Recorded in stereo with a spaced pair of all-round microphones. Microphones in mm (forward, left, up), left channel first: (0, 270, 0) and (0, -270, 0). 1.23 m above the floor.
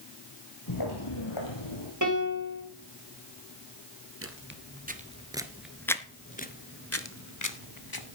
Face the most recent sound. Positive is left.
turn(degrees=40)  # may be behind; listen again after turning